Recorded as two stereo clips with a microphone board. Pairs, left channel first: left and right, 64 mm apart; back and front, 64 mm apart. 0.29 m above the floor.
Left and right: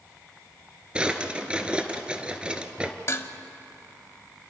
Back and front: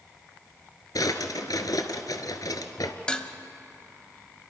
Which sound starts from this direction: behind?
A drawer, at 0.9 s.